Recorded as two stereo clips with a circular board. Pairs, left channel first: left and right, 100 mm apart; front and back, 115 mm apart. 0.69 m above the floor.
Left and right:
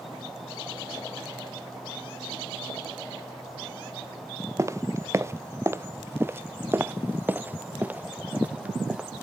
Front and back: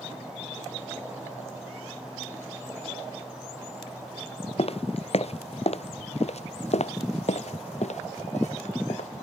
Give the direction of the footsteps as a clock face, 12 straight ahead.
1 o'clock.